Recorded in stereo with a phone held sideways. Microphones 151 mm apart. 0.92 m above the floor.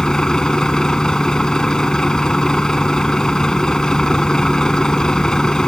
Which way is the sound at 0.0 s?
5° left (ahead or behind).